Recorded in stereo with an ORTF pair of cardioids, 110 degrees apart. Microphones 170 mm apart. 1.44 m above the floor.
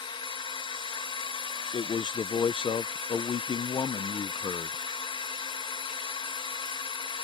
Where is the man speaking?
30° left.